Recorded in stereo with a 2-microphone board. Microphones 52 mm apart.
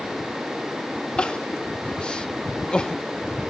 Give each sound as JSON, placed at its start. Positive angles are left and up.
{"t": 1.2, "sound": "crying", "side_deg": 20}